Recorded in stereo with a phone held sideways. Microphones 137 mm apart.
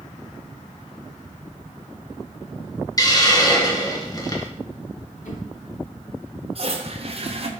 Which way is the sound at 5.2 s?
75° left (ahead or behind).